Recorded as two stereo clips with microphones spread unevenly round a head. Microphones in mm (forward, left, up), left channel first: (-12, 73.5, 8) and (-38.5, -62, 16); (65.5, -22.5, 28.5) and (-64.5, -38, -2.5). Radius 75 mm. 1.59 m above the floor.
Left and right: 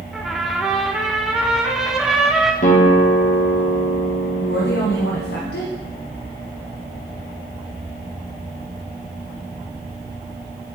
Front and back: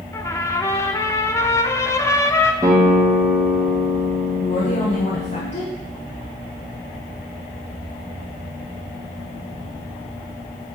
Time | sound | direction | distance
0.1 | a trumpet | 20° right | 0.8 m
2.6 | a guitar | 115° left | 1.6 m
4.4 | a woman speaking | 60° left | 1.3 m